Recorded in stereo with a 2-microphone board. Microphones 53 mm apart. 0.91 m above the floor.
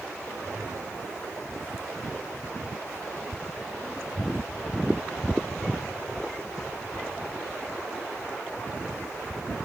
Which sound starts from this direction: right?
A whoosh, at 0.2 s.